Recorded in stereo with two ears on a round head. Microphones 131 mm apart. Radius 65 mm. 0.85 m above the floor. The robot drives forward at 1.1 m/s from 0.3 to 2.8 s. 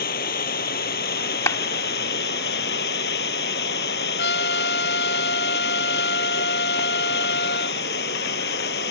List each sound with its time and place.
0.0 s running water: 70° left (ahead or behind); by 8.9 s 85° left
1.5 s a clap: 20° left (ahead or behind); by 1.6 s 25° left (ahead or behind)
4.2 s a trumpet: 80° left